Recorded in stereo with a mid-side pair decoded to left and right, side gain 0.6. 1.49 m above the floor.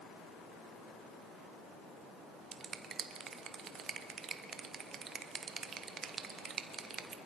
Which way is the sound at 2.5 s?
40° right.